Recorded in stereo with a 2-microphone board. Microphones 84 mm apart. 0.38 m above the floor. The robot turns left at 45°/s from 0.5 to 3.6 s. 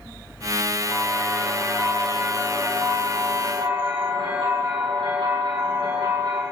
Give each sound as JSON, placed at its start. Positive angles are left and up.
{"t": 0.8, "sound": "a bell", "azimuth_deg": 45, "distance_m": 5.0}